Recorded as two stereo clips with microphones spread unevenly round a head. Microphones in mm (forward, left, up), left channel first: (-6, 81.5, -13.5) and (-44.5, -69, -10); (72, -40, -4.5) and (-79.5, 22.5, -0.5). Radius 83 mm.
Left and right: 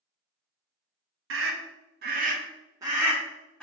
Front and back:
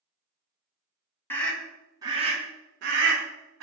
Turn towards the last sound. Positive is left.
turn(degrees=160)